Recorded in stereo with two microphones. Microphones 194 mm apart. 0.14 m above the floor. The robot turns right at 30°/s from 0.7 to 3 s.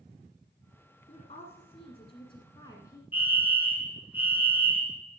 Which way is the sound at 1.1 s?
90° left.